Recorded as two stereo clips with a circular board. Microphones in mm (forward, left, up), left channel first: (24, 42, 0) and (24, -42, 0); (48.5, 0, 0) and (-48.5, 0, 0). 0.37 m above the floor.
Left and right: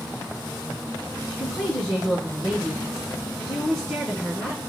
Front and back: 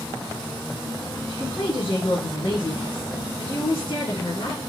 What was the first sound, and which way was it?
A woman speaking, 10° left.